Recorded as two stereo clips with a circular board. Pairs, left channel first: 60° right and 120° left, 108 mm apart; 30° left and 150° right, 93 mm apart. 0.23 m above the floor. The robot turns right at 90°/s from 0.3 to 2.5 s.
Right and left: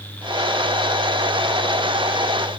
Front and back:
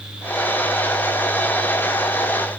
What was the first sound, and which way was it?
Only background noise.